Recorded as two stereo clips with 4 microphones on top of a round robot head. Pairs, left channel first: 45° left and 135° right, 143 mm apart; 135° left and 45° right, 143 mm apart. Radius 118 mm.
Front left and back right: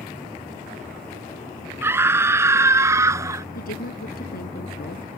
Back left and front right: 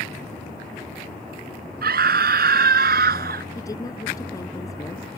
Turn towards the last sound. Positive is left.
turn(degrees=65)